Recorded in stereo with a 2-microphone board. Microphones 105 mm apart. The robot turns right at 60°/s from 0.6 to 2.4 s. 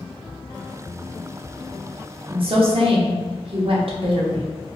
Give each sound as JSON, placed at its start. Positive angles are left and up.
{"t": 2.3, "sound": "a woman speaking", "side_deg": -55, "distance_m": 0.9}